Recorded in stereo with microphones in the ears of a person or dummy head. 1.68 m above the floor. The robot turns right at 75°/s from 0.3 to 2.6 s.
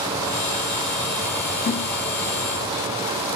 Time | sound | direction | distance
1.6 | a snare drum | 40° left (ahead or behind) | 2.0 m